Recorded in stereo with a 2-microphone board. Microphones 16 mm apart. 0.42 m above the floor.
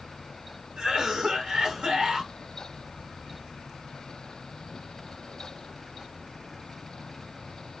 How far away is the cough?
About 1.7 m.